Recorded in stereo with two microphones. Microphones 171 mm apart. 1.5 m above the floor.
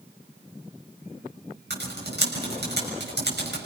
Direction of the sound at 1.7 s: 80° right.